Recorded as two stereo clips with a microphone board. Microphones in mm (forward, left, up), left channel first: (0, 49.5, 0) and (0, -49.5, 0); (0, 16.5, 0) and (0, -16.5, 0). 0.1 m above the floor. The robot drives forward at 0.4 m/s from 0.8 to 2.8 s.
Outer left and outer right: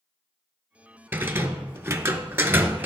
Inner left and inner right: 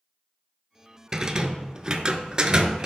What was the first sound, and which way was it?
A rattle, 20° right (ahead or behind).